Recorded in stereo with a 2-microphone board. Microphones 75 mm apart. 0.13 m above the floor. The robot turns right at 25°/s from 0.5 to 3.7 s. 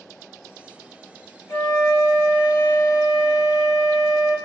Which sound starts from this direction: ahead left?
A flute, at 1.5 s.